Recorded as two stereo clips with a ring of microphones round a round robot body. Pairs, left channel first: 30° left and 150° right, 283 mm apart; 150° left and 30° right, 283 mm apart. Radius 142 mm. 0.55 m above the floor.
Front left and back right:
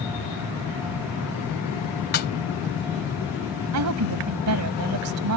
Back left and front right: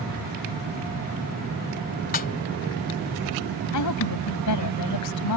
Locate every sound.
2.1 s a snare drum: 90° left
3.7 s a woman speaking: 175° left